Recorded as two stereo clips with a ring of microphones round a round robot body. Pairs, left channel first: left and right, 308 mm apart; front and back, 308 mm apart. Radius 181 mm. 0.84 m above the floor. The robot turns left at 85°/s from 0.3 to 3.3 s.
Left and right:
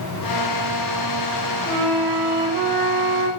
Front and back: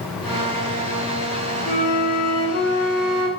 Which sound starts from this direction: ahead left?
A flute, at 1.7 s.